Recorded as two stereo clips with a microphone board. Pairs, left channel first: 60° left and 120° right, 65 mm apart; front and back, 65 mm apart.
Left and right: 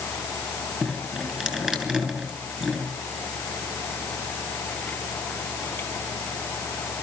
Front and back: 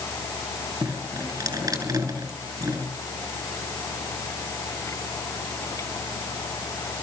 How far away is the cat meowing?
No cat meowing in this recording.